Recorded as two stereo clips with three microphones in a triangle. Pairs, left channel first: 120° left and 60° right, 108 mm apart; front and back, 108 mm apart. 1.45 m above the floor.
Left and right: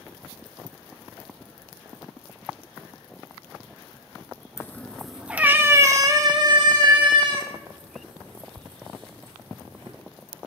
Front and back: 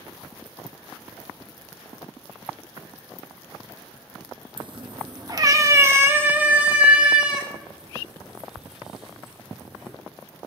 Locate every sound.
4.6 s a cat meowing: 175° left, 0.9 m; by 9.9 s 95° right, 4.5 m